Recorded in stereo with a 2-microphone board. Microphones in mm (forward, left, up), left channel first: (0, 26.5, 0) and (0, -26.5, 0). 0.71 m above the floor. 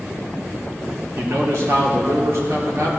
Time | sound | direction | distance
1.1 | a man speaking | 60° right (ahead or behind) | 1.7 m